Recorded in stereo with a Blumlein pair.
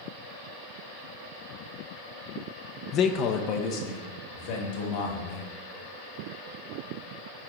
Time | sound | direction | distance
2.9 | a man speaking | 30° left | 0.5 m